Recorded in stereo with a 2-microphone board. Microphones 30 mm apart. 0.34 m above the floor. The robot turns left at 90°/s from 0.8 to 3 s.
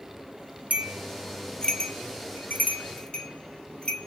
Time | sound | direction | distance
0.7 | a bell | 50° right (ahead or behind) | 0.6 m